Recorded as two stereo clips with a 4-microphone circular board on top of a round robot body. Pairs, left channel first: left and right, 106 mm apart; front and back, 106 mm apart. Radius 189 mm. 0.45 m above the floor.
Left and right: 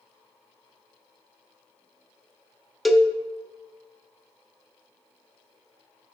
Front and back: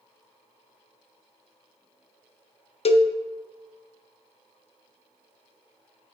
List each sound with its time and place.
2.9 s a cowbell: straight ahead, 0.5 m